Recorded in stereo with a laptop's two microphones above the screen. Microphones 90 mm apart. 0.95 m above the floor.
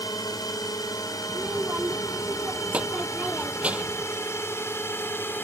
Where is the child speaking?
15° right (ahead or behind).